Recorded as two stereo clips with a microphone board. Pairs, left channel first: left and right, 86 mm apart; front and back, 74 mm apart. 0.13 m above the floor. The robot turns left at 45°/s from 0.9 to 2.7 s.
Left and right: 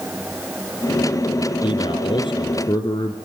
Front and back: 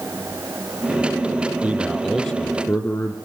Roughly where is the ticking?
I don't hear ticking.